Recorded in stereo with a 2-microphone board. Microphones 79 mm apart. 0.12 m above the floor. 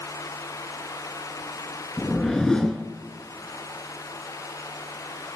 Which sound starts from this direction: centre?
A whoosh, at 2.0 s.